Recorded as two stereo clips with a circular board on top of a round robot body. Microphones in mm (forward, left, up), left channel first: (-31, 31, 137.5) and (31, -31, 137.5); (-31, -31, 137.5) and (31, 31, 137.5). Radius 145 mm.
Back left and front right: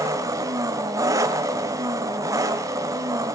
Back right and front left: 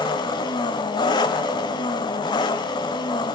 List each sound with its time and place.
0.0 s an engine running: 100° right, 1.8 m